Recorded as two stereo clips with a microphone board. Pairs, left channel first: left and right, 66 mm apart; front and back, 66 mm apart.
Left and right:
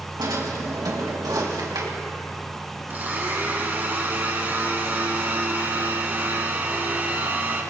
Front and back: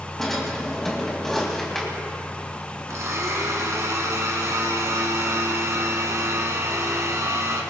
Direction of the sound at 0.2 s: 85° right.